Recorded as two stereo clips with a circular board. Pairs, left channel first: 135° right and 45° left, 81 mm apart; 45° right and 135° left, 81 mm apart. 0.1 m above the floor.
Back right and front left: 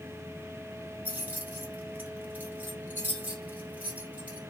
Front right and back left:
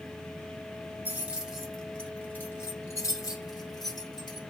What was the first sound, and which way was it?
Keys jangling, 95° left.